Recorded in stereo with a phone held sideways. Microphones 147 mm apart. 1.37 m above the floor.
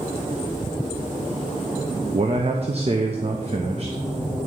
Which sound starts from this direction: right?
A man speaking, at 2.1 s.